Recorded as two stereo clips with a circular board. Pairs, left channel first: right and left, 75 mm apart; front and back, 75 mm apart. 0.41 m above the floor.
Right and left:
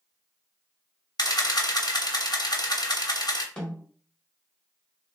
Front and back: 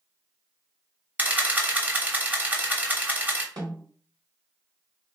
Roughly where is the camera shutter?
Behind right.